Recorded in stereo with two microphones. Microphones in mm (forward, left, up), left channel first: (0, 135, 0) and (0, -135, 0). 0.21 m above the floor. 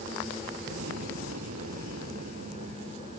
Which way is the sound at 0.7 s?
75° right (ahead or behind).